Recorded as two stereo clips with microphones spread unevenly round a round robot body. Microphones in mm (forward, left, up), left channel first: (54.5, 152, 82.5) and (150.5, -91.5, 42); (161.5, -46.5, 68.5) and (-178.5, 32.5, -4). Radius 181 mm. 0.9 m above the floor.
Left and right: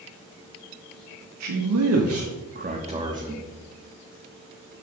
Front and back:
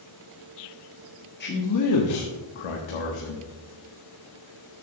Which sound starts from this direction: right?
A man speaking, at 1.4 s.